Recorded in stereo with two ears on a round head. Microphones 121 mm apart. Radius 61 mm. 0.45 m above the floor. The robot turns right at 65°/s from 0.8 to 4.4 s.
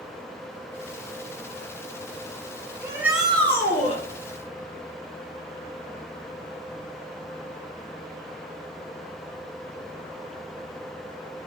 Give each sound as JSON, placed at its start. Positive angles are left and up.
{"t": 2.8, "sound": "a shout", "azimuth_deg": -30, "distance_m": 6.5}